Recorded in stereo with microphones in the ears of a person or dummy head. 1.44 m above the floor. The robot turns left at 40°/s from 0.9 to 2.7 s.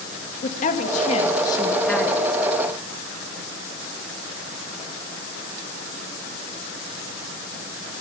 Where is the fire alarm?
No fire alarm in this recording.